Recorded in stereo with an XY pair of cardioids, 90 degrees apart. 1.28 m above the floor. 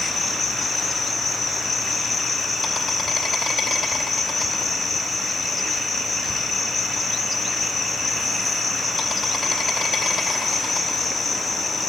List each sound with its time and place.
0.0 s an insect: 50° left, 2.5 m